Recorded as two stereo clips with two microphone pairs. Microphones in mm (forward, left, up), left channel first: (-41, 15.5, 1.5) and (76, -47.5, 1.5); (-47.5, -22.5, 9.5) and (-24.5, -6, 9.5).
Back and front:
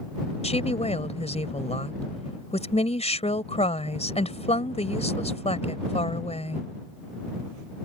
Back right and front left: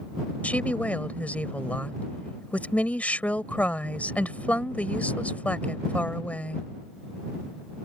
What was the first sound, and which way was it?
A woman speaking, 170° right.